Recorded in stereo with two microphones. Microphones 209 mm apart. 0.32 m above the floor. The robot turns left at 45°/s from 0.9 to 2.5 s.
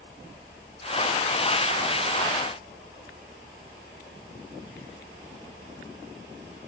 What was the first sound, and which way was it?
Only background noise.